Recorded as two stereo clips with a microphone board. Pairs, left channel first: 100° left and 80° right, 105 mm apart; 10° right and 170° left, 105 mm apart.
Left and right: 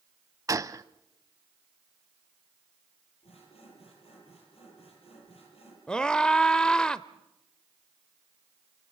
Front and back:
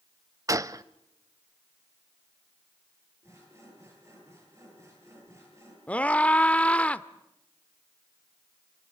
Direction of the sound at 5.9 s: 40° left.